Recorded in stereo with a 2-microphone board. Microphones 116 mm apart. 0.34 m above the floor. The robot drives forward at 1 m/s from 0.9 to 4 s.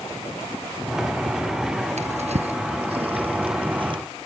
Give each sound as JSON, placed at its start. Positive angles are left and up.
{"t": 2.0, "sound": "a drawer", "side_deg": -75}